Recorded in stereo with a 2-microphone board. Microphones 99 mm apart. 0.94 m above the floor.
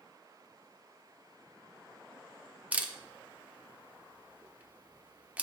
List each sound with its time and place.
2.7 s a camera shutter: 15° right (ahead or behind), 0.6 m